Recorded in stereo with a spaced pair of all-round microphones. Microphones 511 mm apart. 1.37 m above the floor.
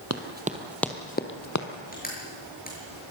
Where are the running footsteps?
30° right (ahead or behind), 1.7 m; by 1.7 s 35° left (ahead or behind), 2 m.